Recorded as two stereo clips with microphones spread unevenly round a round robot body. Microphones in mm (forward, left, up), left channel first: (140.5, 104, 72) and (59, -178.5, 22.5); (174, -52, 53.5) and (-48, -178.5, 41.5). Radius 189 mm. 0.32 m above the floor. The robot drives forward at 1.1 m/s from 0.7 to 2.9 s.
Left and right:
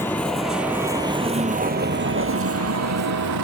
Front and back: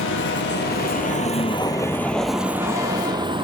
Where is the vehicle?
10° right; by 3.4 s 80° right.